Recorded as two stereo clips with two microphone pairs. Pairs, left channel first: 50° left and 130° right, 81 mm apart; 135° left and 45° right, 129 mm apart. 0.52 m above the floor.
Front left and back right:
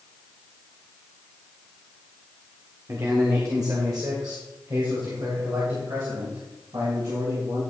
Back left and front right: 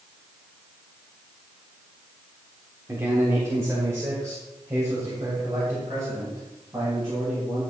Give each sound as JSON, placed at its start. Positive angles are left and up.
{"t": 2.9, "sound": "a man speaking", "azimuth_deg": -100, "distance_m": 1.5}